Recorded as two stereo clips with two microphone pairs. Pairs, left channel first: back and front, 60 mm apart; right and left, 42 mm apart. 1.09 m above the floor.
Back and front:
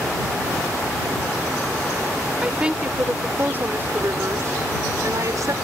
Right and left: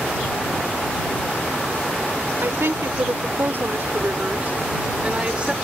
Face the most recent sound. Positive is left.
turn(degrees=25)